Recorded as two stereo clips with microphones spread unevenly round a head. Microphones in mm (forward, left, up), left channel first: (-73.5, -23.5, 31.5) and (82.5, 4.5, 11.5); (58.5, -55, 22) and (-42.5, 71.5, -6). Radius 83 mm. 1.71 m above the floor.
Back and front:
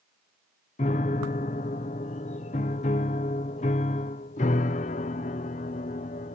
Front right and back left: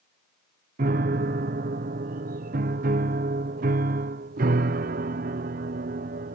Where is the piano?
165° left.